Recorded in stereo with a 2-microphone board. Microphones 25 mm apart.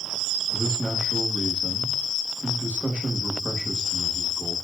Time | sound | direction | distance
0.5 | a man speaking | 65° right (ahead or behind) | 8 m